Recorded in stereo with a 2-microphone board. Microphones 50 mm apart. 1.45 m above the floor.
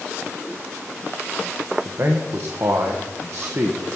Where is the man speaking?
55° right (ahead or behind), 0.9 m.